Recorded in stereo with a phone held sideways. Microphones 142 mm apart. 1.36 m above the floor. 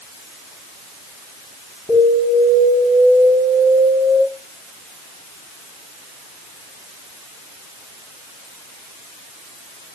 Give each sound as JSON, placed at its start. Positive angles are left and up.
{"t": 1.9, "sound": "an alarm", "side_deg": -45, "distance_m": 9.0}